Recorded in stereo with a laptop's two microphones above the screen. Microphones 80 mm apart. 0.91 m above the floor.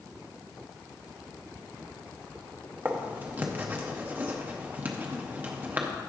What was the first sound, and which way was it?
Writing, 25° right (ahead or behind).